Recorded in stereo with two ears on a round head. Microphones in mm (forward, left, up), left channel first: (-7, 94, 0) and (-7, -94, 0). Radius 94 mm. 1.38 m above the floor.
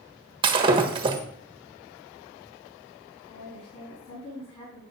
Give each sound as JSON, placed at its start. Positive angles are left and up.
{"t": 0.4, "sound": "breaking glass", "side_deg": -25, "distance_m": 1.3}
{"t": 3.3, "sound": "a woman speaking", "side_deg": 30, "distance_m": 7.0}